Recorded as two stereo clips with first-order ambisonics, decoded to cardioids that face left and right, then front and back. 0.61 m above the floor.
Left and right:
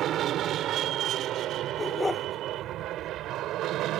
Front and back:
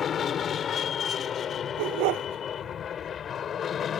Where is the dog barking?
175° left.